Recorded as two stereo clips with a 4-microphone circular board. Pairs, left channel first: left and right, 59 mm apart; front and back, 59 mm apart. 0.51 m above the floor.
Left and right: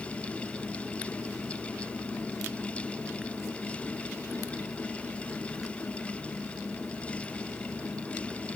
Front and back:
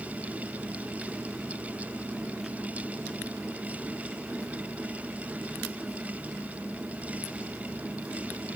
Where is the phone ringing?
I don't hear a phone ringing.